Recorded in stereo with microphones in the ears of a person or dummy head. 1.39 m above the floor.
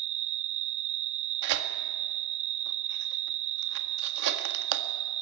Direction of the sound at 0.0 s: 35° right (ahead or behind).